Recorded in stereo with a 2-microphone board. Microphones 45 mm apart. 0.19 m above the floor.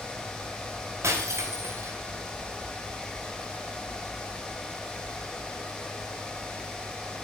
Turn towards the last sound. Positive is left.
turn(degrees=-75)  # may be behind; listen again after turning